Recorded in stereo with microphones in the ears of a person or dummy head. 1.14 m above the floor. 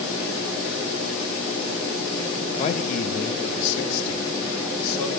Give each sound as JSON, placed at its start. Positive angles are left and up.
{"t": 2.6, "sound": "a man speaking", "side_deg": 35, "distance_m": 0.9}